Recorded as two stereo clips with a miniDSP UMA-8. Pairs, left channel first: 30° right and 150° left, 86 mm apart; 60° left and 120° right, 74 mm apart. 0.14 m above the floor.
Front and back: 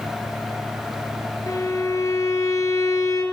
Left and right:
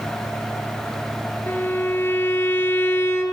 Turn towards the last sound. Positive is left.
turn(degrees=10)